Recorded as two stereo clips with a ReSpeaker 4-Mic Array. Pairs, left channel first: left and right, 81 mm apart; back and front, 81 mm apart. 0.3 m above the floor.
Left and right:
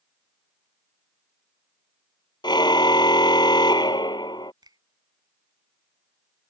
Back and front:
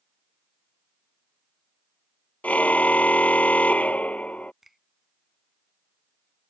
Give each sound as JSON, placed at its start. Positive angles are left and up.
{"t": 2.4, "sound": "a car horn", "azimuth_deg": 110}
{"t": 4.6, "sound": "a finger snap", "azimuth_deg": -85}